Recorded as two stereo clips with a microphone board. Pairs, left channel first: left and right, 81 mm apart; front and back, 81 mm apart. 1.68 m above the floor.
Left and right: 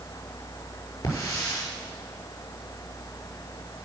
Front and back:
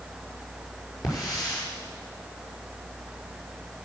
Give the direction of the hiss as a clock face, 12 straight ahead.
11 o'clock.